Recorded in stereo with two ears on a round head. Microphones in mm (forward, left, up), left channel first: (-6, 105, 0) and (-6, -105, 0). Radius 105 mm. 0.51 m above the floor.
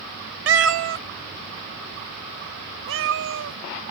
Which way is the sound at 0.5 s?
50° right (ahead or behind).